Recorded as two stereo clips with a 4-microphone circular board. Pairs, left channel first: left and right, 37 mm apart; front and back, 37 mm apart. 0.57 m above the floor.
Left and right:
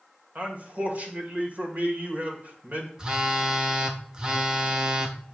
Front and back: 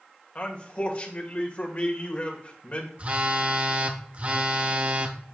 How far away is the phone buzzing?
About 0.9 m.